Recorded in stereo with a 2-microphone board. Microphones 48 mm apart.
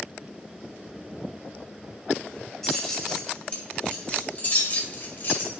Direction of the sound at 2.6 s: 10° left (ahead or behind).